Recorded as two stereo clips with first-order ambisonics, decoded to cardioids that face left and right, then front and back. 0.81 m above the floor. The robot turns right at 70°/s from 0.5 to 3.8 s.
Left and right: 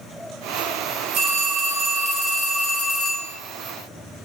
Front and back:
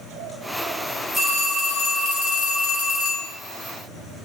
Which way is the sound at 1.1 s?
95° right.